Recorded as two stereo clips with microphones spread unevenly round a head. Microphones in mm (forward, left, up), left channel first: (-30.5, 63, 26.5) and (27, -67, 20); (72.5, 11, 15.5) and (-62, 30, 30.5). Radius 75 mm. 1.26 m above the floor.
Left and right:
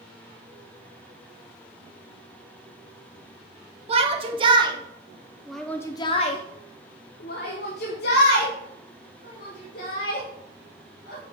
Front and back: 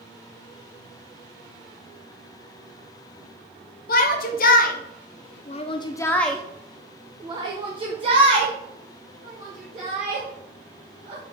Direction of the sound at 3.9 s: 20° right.